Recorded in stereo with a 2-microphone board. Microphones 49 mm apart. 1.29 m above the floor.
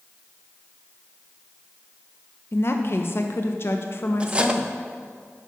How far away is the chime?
No chime in this recording.